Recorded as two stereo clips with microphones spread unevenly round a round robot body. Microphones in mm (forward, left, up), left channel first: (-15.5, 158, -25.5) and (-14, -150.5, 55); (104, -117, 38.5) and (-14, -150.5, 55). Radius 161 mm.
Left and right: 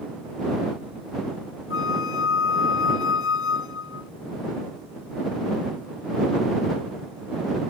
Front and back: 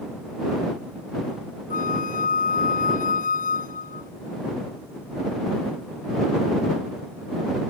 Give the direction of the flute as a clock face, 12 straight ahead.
11 o'clock.